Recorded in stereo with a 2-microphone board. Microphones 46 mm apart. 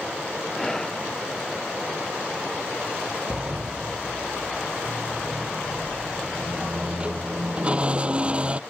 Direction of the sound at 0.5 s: 15° left (ahead or behind).